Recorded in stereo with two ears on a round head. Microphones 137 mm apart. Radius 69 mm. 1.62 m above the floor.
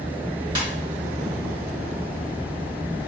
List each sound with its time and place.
0.6 s a ringtone: 30° right (ahead or behind), 2.0 m